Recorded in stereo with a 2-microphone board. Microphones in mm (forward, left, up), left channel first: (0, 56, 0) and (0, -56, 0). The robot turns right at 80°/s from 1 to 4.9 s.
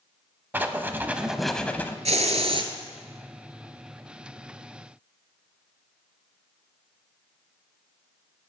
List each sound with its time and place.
0.5 s writing: 35° right, 0.5 m; by 1.9 s 40° left, 0.5 m
2.0 s a hiss: 95° right, 0.7 m; by 2.7 s 45° right, 0.7 m